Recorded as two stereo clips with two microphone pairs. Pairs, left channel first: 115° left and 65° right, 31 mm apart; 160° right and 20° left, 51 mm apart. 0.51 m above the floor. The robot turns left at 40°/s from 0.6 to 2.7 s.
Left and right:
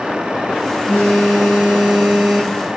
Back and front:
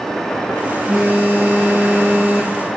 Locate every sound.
0.9 s a phone buzzing: 85° left, 5 m; by 2.6 s 20° left, 5 m